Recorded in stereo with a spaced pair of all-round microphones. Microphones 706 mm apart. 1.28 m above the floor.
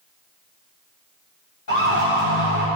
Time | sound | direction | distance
1.7 | a siren | 75° left (ahead or behind) | 5.5 m